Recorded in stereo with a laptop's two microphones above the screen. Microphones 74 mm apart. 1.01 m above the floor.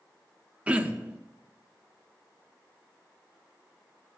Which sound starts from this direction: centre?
Throat clearing, at 0.7 s.